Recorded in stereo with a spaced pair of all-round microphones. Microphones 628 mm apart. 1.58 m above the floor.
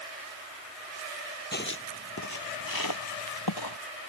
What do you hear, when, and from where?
1.5 s footsteps: 15° left (ahead or behind); by 3.8 s 35° left (ahead or behind)